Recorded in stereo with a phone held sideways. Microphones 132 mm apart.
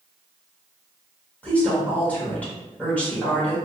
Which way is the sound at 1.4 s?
10° left (ahead or behind).